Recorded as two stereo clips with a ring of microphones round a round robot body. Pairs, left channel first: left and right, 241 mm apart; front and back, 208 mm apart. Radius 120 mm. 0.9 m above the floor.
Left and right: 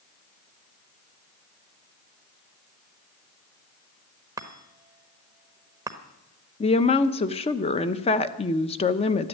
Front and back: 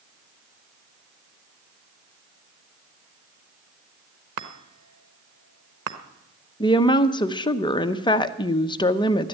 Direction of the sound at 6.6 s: 50° left.